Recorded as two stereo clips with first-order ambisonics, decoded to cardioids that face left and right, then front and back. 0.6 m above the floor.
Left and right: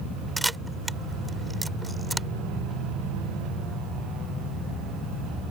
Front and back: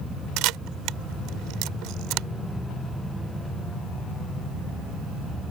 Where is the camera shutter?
175° right.